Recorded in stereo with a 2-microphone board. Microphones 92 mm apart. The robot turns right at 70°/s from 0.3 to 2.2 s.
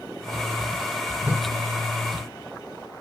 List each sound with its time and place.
1.2 s a whoosh: 20° right (ahead or behind), 1.2 m; by 1.5 s 30° right (ahead or behind), 1.2 m